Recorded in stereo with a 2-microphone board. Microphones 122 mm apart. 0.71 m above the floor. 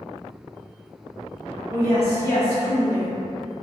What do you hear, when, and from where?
1.7 s a woman speaking: 65° left (ahead or behind), 1.8 m